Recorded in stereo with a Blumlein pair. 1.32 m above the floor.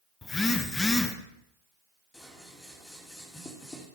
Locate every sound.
0.2 s a phone buzzing: 10° left, 1.3 m
2.1 s scissors: 5° left, 2.5 m